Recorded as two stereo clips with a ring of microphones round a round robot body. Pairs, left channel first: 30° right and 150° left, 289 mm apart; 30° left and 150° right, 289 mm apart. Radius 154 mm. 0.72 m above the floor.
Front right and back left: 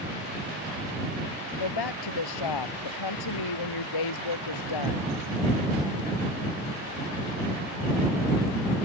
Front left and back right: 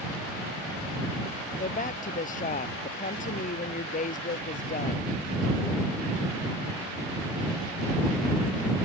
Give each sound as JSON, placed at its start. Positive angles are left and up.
{"t": 1.6, "sound": "a woman speaking", "azimuth_deg": -35}